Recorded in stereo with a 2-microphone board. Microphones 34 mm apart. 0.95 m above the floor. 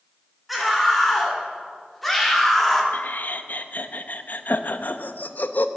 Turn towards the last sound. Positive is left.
turn(degrees=60)  # may be behind; listen again after turning